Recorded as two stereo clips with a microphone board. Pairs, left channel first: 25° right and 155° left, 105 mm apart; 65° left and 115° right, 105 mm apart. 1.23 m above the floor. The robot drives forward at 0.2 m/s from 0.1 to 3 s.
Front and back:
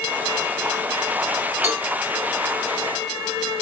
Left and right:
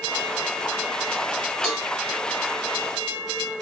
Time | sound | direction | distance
1.6 | a cowbell | 155° left | 1.6 m